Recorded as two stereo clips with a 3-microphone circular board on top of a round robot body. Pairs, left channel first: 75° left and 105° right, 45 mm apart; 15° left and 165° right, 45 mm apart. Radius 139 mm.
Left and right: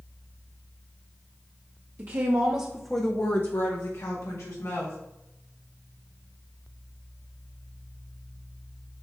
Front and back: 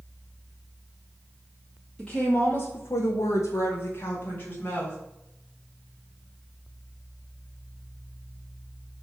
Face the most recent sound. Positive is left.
turn(degrees=70)